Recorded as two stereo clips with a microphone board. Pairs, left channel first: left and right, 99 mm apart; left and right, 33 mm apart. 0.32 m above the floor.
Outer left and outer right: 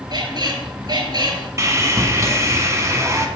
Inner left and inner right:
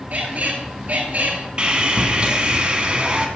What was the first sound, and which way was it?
A squeak, 45° right (ahead or behind).